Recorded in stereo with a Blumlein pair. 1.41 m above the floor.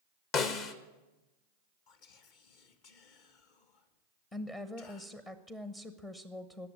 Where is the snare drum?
35° left, 1.2 m.